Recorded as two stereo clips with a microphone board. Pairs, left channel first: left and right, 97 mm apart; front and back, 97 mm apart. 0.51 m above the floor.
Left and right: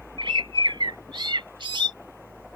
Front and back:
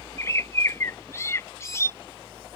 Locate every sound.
0.2 s a bird: 60° right